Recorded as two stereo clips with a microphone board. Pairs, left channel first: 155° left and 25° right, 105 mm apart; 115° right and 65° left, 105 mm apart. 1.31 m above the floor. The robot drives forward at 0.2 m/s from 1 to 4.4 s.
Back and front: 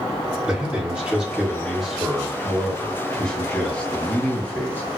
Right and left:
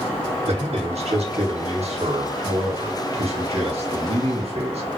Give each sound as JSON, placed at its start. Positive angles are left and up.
{"t": 0.4, "sound": "a man speaking", "azimuth_deg": 55, "distance_m": 1.5}